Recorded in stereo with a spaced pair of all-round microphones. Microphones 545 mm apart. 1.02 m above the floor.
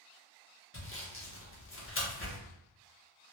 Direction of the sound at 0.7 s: 25° left (ahead or behind).